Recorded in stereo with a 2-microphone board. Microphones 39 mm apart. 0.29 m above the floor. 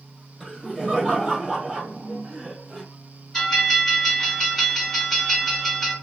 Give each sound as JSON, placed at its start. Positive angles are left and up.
{"t": 0.4, "sound": "laughter", "side_deg": 10, "distance_m": 1.4}
{"t": 3.3, "sound": "a bell", "side_deg": 15, "distance_m": 1.9}